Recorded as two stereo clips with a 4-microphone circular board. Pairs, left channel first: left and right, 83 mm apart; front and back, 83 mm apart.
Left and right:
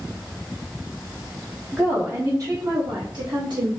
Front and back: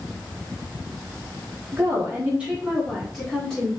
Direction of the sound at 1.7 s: 150° right.